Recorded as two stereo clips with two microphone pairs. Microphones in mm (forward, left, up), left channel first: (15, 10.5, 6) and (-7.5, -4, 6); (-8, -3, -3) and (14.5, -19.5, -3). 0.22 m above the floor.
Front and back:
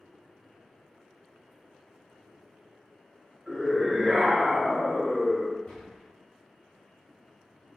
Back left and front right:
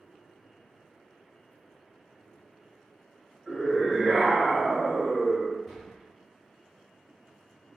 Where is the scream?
55° right, 1.4 m.